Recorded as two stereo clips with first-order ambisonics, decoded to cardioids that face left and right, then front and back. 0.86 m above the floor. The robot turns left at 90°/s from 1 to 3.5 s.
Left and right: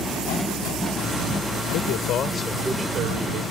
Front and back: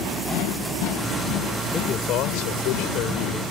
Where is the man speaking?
75° left; by 3.4 s 75° right.